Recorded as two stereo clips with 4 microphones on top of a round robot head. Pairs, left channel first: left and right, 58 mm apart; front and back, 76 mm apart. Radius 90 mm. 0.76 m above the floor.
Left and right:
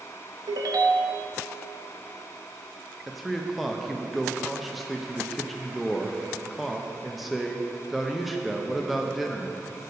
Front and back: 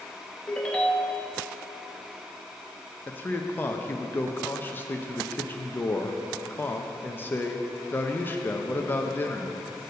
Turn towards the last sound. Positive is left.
turn(degrees=0)